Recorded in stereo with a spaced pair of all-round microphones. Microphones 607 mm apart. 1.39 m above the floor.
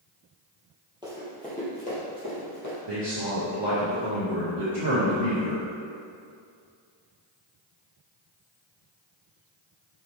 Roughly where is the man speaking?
Right.